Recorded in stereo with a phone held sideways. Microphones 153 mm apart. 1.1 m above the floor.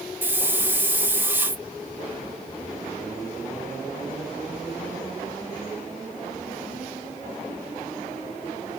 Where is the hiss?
15° right (ahead or behind), 0.6 m.